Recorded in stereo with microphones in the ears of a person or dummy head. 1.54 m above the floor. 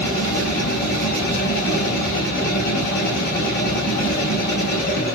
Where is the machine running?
55° left (ahead or behind), 0.8 m.